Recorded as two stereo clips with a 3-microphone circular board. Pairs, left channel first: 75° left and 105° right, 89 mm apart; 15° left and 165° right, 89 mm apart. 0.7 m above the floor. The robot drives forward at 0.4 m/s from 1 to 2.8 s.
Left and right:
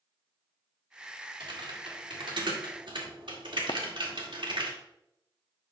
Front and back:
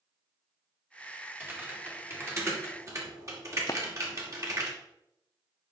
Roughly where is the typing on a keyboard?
Right.